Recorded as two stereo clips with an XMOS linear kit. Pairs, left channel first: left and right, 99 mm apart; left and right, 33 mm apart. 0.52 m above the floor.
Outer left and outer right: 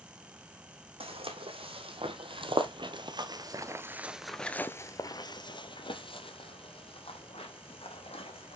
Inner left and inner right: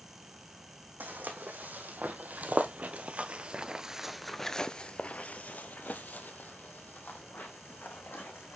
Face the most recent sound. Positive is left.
turn(degrees=80)